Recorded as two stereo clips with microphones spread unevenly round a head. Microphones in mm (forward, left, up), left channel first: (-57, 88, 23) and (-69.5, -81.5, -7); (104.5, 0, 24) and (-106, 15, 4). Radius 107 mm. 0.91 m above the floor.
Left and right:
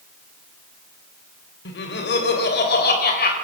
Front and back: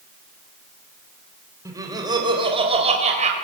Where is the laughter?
100° left, 4 m; by 3.4 s 120° left, 4 m.